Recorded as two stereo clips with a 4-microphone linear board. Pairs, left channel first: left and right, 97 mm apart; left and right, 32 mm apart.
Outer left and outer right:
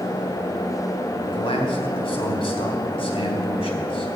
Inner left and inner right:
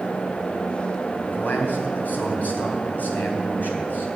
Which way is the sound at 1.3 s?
70° left (ahead or behind).